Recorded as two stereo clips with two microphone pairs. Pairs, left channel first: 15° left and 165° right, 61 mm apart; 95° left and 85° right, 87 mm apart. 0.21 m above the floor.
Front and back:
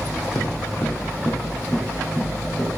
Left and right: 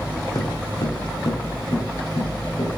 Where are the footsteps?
50° left, 0.8 m; by 2.8 s 100° left, 1.8 m.